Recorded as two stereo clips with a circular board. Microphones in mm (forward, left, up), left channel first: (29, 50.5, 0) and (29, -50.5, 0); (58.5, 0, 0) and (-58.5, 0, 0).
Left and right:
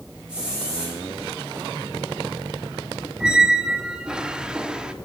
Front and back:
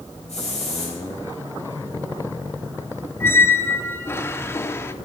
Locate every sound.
0.3 s a hiss: 10° right, 7 m
3.2 s a squeak: 20° right, 0.8 m